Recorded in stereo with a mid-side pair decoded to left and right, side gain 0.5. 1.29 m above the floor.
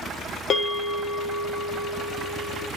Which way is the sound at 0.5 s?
50° left.